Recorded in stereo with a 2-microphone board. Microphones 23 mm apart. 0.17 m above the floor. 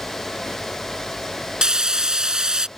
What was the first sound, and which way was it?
Frying, 35° right (ahead or behind).